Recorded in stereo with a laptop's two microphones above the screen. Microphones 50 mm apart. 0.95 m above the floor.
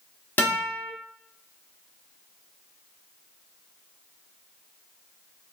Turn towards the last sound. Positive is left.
turn(degrees=40)  # may be behind; listen again after turning